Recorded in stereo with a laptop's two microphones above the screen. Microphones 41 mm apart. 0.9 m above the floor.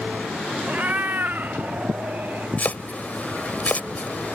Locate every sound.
0.7 s a cat meowing: 40° right (ahead or behind); by 2.5 s 55° right (ahead or behind)
2.6 s chopping: 40° left (ahead or behind)